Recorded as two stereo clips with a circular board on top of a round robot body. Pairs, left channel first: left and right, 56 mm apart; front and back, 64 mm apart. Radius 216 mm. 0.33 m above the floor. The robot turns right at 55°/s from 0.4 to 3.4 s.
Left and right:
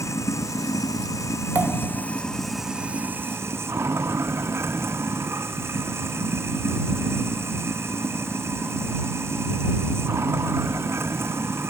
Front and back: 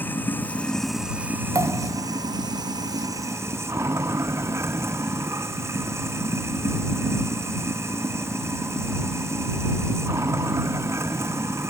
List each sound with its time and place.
0.0 s running water: 65° left; by 11.7 s 130° right
1.6 s a pop: 145° right; by 2.0 s 115° right